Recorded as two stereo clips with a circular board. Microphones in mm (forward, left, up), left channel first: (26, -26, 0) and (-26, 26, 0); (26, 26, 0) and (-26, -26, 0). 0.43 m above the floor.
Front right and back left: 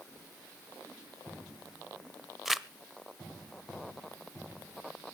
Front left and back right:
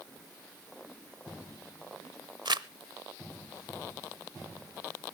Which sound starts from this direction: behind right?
Crumpling, at 2.5 s.